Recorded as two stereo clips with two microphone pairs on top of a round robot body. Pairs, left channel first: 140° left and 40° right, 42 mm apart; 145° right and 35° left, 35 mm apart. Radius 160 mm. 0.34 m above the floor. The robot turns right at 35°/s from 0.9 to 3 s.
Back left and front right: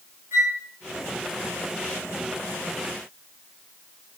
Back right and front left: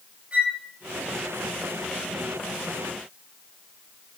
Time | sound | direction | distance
0.3 | a flute | 30° right | 3.5 m